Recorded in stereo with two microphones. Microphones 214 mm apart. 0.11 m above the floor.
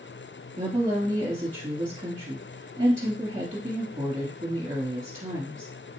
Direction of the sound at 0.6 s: 20° right (ahead or behind).